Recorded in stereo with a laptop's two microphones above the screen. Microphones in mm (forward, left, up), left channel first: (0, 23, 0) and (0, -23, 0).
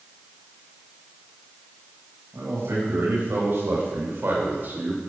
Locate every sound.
2.3 s a man speaking: 75° right (ahead or behind), 6 m; by 5.0 s 40° right (ahead or behind), 3 m